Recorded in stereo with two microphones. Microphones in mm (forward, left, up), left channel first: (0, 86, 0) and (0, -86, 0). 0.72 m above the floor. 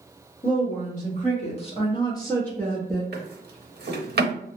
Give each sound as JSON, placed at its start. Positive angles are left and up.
{"t": 0.4, "sound": "a woman speaking", "side_deg": 50, "distance_m": 1.4}
{"t": 3.1, "sound": "a drawer", "side_deg": -60, "distance_m": 0.8}